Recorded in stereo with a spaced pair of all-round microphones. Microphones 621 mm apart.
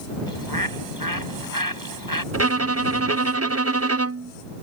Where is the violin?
25° right (ahead or behind).